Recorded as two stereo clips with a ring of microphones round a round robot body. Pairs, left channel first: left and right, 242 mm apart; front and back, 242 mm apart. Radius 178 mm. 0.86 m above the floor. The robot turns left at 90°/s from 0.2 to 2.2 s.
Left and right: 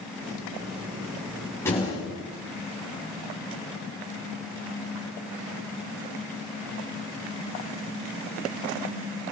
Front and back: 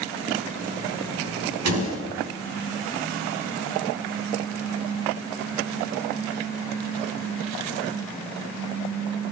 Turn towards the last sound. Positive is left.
turn(degrees=125)